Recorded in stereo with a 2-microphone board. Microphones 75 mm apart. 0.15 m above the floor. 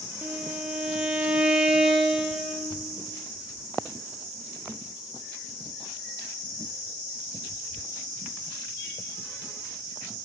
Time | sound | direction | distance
0.2 | a violin | 10° right (ahead or behind) | 0.8 m